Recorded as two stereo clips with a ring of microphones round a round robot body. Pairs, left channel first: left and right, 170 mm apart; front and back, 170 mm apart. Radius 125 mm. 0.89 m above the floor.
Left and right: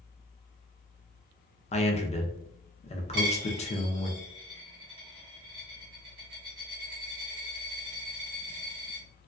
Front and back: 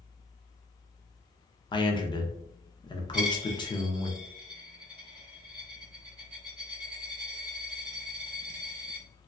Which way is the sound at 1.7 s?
55° left.